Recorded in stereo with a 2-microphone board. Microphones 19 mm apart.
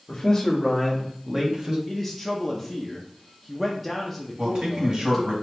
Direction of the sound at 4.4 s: 45° right (ahead or behind).